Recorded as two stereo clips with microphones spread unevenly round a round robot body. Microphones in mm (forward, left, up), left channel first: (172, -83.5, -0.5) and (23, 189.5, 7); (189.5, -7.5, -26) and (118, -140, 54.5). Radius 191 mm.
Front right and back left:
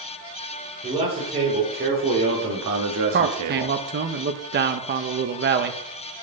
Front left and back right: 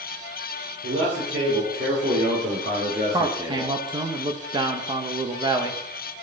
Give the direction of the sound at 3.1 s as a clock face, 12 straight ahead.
7 o'clock.